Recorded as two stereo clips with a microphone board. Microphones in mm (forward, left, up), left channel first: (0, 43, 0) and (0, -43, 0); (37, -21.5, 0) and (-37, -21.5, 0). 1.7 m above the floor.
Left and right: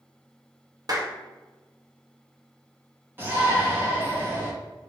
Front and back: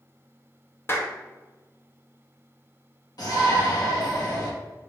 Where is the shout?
25° right, 1.8 m.